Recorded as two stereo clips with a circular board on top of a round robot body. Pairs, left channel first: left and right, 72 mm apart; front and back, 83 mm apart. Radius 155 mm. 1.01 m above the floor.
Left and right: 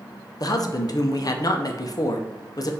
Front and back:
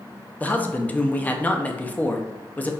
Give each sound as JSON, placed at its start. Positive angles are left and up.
{"t": 0.4, "sound": "a man speaking", "azimuth_deg": 70, "distance_m": 0.7}